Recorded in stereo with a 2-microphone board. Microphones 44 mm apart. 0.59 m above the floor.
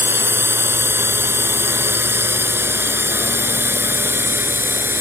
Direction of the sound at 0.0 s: 65° right (ahead or behind).